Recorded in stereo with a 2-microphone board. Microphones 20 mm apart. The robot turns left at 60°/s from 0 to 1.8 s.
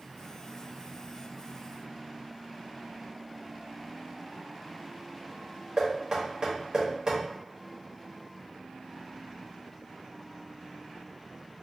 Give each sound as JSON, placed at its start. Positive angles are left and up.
{"t": 5.8, "sound": "knocking", "side_deg": -40, "distance_m": 1.6}